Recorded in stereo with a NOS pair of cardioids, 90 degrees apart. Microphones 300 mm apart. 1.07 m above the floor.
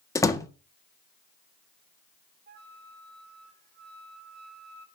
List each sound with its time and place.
0.1 s a door slam: 10° left, 1.5 m
2.5 s a flute: 35° right, 1.5 m